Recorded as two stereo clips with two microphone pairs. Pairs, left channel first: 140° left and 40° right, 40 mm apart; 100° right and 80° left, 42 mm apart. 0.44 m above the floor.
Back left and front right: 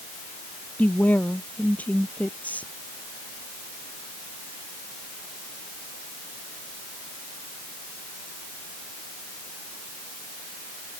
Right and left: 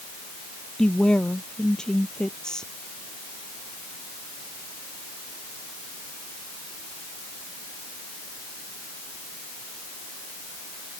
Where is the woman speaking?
170° right.